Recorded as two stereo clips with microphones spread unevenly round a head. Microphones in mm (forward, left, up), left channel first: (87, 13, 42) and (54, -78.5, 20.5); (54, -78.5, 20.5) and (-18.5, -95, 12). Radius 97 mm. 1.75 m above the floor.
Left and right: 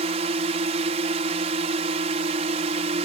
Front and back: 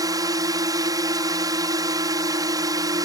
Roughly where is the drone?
Behind right.